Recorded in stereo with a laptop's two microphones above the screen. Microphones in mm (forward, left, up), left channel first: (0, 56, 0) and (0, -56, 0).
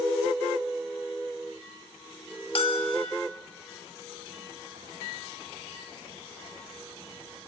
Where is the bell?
55° left (ahead or behind), 2 m.